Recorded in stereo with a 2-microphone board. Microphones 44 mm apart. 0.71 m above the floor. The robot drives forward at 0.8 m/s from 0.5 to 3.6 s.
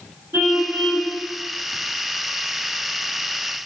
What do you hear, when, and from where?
0.3 s a car horn: 60° right (ahead or behind), 5 m; by 1.1 s 65° right (ahead or behind), 4.5 m